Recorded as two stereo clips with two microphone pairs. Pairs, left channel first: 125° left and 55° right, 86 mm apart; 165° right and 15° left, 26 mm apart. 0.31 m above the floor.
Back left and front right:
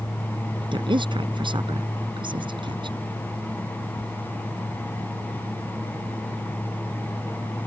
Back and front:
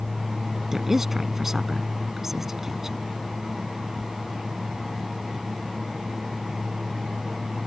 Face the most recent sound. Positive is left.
turn(degrees=-55)